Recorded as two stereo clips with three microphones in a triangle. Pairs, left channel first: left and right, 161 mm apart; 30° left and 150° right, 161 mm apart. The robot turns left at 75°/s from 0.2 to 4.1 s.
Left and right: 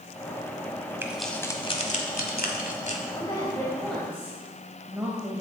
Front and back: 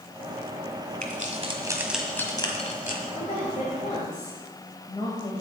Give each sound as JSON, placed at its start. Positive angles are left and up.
{"t": 1.0, "sound": "keys jangling", "azimuth_deg": -165, "distance_m": 1.2}
{"t": 3.1, "sound": "a woman speaking", "azimuth_deg": 60, "distance_m": 1.3}